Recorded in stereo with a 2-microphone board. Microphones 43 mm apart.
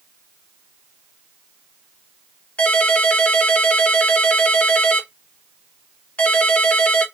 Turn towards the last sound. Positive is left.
turn(degrees=30)  # may be behind; listen again after turning